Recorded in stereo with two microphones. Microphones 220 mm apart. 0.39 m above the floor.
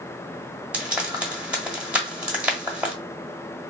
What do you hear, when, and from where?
0.7 s frying: 5° right (ahead or behind), 1.3 m